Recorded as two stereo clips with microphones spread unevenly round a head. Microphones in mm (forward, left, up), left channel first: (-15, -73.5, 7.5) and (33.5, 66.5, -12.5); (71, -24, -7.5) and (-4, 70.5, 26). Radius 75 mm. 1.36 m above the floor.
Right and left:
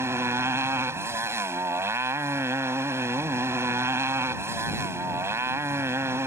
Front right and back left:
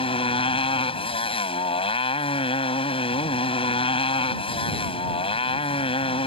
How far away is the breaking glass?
No breaking glass in this recording.